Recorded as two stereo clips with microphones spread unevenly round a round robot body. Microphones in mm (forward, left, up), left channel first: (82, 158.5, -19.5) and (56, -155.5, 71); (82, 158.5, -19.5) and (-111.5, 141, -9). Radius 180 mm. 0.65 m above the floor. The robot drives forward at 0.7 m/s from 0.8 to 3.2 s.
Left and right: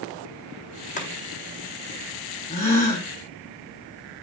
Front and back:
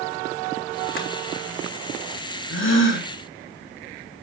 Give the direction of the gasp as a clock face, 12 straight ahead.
11 o'clock.